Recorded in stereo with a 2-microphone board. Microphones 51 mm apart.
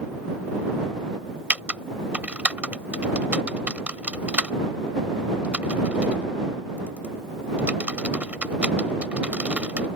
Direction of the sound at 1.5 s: 25° right (ahead or behind).